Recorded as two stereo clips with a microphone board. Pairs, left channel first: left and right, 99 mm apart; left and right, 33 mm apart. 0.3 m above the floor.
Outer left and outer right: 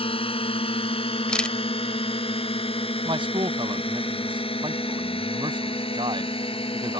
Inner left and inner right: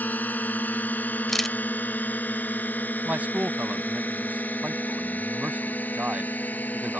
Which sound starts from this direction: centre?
A camera shutter, at 1.3 s.